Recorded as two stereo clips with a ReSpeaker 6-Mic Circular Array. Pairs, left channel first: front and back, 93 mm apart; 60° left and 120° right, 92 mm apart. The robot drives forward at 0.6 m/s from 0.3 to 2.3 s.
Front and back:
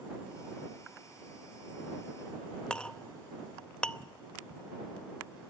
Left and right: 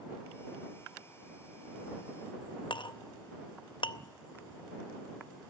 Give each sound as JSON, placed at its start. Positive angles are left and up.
{"t": 2.7, "sound": "a clink", "azimuth_deg": 80, "distance_m": 0.5}